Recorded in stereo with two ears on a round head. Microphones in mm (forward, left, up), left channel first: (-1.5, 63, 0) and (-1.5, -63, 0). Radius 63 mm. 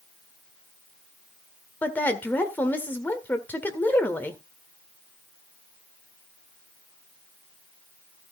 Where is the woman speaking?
15° left (ahead or behind), 1.8 m.